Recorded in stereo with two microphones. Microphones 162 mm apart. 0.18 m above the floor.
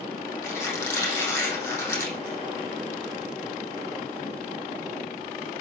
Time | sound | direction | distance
0.4 | a squeak | 15° left (ahead or behind) | 4.5 m